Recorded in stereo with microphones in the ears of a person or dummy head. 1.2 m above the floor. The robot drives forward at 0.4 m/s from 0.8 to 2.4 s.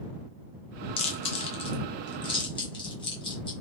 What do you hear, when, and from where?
1.0 s chewing: 25° left (ahead or behind), 0.7 m; by 3.5 s 20° left (ahead or behind), 0.8 m